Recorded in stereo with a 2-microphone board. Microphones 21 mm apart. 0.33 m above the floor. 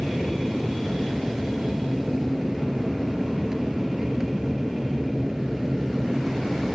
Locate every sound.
0.0 s an aircraft: 20° right (ahead or behind)